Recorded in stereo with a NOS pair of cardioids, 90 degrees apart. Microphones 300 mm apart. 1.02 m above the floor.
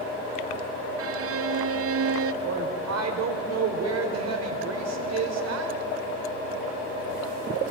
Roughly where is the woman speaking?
Ahead right.